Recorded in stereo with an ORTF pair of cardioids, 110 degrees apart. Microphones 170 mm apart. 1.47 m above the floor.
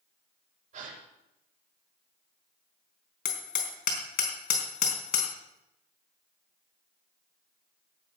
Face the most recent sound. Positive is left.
turn(degrees=65)